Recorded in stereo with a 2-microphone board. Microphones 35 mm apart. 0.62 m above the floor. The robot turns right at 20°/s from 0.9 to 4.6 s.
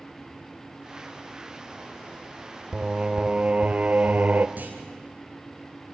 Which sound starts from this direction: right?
A clunk, at 4.6 s.